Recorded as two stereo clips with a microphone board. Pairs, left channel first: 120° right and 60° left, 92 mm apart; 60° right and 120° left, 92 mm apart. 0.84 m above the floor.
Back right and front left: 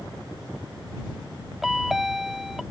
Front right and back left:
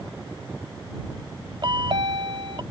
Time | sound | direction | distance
1.6 | a chime | 145° left | ?